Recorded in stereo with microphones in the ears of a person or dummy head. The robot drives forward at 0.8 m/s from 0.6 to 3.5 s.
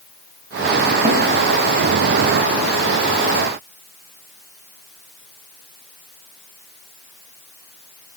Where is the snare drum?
25° right (ahead or behind), 3 m.